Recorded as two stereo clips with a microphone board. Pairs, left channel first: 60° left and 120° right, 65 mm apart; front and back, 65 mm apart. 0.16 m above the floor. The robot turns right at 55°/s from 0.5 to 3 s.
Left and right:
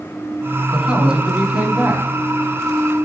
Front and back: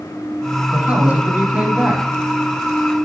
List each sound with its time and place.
0.7 s a man speaking: 165° left, 1.1 m; by 2.0 s 125° right, 1.1 m